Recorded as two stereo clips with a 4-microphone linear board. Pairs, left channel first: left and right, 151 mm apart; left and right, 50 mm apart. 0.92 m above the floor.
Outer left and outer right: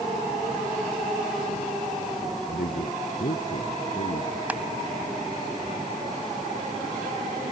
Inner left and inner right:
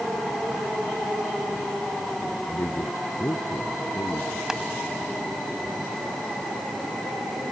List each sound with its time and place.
2.5 s a man speaking: 70° left (ahead or behind); by 4.4 s 75° left (ahead or behind)
4.5 s crushing: 10° right (ahead or behind)